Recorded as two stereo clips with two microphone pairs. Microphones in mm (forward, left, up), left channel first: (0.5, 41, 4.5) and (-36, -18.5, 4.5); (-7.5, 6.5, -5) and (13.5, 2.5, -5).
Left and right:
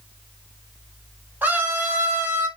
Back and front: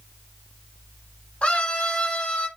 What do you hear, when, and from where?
1.4 s a scream: 175° left, 4 m; by 2.5 s 175° right, 4 m